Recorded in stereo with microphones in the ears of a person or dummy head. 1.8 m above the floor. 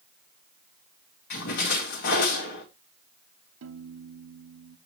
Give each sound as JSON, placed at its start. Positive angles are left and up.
{"t": 1.3, "sound": "a splash", "side_deg": 55, "distance_m": 2.5}
{"t": 3.6, "sound": "a piano", "side_deg": -80, "distance_m": 0.9}